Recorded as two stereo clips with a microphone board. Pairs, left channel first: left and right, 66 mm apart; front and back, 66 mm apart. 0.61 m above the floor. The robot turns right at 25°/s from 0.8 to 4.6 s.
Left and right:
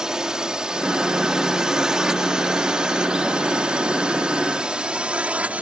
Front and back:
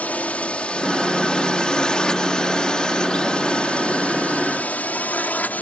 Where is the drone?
25° right; by 5.6 s 40° right.